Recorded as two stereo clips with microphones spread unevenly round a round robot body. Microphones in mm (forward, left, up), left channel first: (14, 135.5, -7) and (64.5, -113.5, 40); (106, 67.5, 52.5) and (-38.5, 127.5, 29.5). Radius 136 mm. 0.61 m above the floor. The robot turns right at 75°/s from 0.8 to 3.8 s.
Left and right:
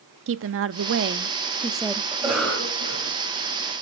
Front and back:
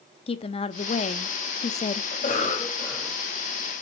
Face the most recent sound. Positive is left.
turn(degrees=120)